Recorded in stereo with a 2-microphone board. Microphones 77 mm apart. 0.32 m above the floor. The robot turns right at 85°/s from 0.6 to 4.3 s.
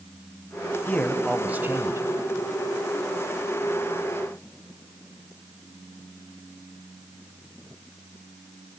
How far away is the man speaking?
About 1.4 m.